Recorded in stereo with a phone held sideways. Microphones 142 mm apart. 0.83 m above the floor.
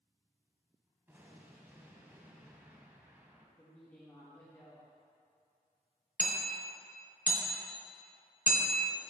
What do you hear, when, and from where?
1.1 s an explosion: 15° right (ahead or behind), 0.7 m
3.6 s a woman speaking: 15° left (ahead or behind), 0.7 m
6.2 s hammering: 55° right (ahead or behind), 0.8 m